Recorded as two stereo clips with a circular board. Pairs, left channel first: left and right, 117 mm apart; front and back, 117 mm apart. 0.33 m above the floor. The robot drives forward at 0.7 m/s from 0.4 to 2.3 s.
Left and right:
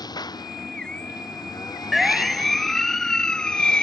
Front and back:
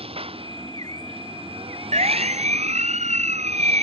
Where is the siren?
Straight behind; by 3.8 s 170° left.